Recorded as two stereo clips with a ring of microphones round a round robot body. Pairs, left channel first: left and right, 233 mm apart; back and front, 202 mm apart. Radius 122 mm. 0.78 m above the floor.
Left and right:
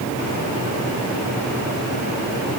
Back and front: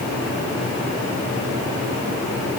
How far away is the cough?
I don't hear a cough.